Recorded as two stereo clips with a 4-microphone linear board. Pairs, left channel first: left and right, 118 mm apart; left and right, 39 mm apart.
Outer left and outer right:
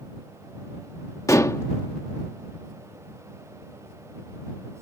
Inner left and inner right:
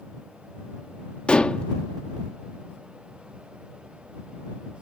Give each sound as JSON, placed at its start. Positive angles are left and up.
{"t": 1.3, "sound": "dishes clattering", "side_deg": 25}